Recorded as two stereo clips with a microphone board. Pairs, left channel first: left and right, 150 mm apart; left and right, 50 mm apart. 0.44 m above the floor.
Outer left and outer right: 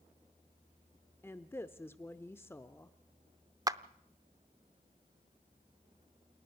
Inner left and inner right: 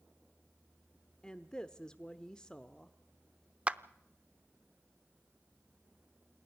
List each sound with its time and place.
1.2 s a woman speaking: 15° left (ahead or behind), 0.8 m
3.7 s a clap: 25° right (ahead or behind), 0.6 m